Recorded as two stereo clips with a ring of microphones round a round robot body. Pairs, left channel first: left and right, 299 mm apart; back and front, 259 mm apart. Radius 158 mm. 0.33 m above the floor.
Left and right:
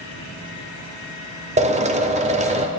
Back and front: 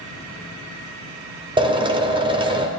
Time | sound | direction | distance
1.6 | a drill | 50° right | 0.9 m